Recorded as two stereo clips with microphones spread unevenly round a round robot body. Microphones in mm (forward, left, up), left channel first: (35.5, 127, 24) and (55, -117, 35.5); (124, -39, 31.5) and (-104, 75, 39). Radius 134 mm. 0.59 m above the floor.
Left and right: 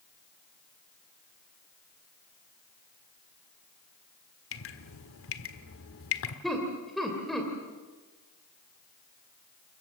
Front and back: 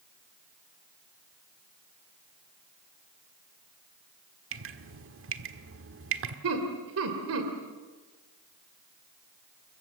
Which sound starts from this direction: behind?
Laughter, at 6.4 s.